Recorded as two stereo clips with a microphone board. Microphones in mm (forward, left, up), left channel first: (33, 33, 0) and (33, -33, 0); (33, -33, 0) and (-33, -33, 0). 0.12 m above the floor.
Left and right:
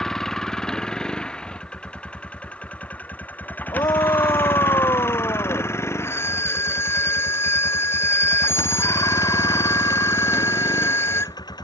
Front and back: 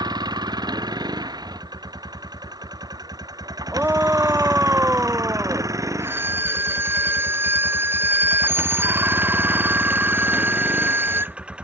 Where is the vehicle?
175° left; by 11.7 s 105° left.